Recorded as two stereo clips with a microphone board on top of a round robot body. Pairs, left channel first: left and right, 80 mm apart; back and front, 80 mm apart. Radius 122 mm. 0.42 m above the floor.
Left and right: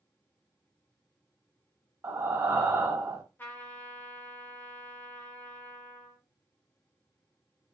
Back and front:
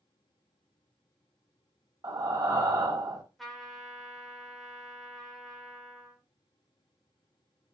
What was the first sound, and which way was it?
Breathing, 35° right.